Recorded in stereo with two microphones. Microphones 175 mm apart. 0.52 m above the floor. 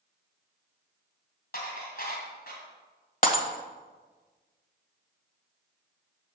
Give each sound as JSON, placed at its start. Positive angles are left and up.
{"t": 1.5, "sound": "dishes clattering", "side_deg": 60, "distance_m": 2.5}
{"t": 3.2, "sound": "breaking glass", "side_deg": 50, "distance_m": 1.2}